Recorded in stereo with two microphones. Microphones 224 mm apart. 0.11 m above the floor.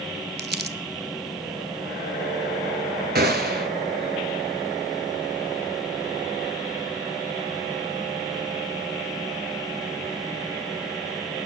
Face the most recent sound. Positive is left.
turn(degrees=-45)  # may be behind; listen again after turning